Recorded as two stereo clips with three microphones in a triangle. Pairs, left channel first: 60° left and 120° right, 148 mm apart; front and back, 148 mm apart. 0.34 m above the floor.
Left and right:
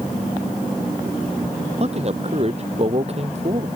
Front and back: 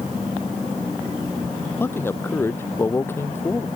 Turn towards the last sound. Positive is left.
turn(degrees=-75)